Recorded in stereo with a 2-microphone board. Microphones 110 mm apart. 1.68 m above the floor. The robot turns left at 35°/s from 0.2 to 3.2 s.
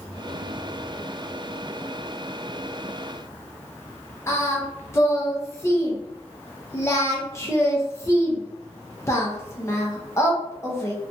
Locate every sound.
4.3 s singing: 25° left (ahead or behind), 0.7 m